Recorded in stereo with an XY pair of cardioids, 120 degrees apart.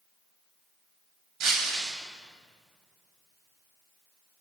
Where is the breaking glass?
65° right, 6.5 m.